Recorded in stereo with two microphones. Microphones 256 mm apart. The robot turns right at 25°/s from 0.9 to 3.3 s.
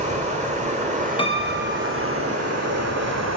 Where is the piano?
20° left (ahead or behind), 0.6 m; by 2.2 s 45° left (ahead or behind), 0.6 m.